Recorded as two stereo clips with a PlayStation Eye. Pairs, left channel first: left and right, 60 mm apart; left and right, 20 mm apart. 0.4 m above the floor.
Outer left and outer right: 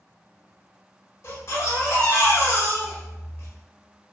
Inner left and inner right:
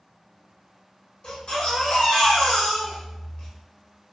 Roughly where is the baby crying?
Left.